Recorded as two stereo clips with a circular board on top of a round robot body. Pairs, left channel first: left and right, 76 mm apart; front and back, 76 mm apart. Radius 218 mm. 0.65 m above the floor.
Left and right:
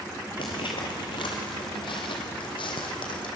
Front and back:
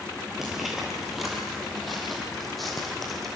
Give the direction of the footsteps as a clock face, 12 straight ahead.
9 o'clock.